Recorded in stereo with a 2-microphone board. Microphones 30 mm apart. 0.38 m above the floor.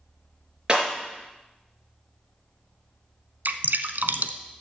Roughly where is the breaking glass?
Right.